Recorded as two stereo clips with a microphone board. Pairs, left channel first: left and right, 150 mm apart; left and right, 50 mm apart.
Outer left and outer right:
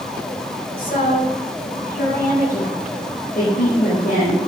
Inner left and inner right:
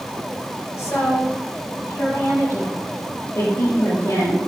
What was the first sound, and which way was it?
A woman speaking, 80° left.